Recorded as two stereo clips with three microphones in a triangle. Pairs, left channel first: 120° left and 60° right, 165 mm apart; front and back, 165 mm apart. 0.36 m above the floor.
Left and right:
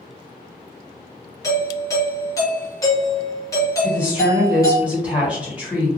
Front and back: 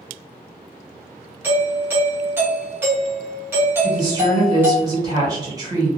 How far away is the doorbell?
About 1.2 m.